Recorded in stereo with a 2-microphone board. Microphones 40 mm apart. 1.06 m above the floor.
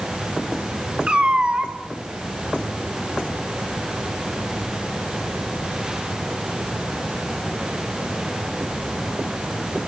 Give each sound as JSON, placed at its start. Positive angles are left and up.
{"t": 1.1, "sound": "a cat meowing", "side_deg": -30, "distance_m": 2.5}